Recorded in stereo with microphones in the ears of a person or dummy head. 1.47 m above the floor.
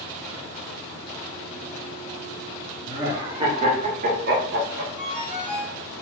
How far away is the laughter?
About 1.2 m.